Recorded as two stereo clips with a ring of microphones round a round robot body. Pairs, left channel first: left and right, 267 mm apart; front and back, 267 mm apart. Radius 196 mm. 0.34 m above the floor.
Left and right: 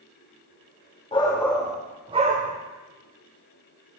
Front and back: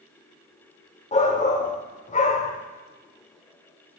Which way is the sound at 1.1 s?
40° left.